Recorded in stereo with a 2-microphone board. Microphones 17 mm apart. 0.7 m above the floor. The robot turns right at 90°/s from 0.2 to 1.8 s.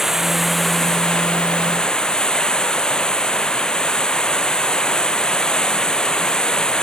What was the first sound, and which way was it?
Running water, 25° right.